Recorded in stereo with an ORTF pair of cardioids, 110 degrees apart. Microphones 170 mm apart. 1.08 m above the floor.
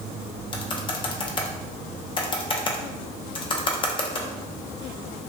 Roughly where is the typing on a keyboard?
Ahead left.